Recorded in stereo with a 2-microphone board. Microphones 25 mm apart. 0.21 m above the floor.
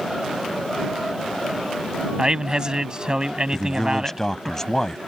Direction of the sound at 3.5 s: 20° left (ahead or behind).